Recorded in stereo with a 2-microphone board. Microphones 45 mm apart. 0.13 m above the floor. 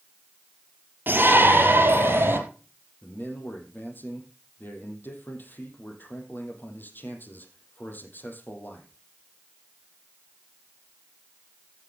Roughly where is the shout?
Right.